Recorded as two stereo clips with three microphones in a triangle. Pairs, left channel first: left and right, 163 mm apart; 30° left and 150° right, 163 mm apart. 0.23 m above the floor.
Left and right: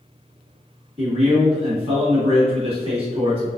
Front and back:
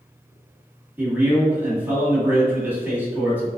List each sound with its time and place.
1.0 s a man speaking: 80° right, 1.8 m